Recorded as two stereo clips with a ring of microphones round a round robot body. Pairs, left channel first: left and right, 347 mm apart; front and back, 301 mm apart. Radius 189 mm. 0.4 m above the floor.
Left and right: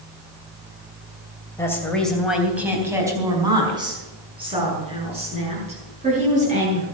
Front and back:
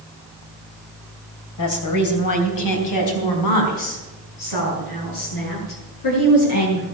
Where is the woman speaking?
10° left, 3 m; by 6.8 s 20° right, 9 m.